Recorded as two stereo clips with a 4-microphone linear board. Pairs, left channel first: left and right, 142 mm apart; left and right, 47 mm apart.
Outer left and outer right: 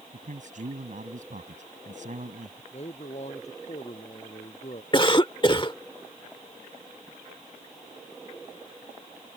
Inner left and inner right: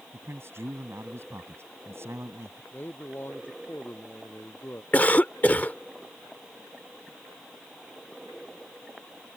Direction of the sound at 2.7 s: 50° left (ahead or behind).